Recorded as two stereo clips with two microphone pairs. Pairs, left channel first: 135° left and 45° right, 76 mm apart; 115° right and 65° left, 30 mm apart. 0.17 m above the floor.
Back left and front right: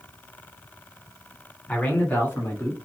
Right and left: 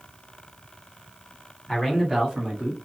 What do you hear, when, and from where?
1.7 s a man speaking: 165° left, 1.1 m; by 2.8 s 105° left, 1.4 m